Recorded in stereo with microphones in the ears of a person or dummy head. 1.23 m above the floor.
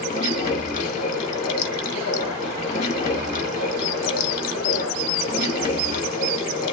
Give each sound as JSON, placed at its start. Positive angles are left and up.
{"t": 0.0, "sound": "running water", "side_deg": 45, "distance_m": 1.2}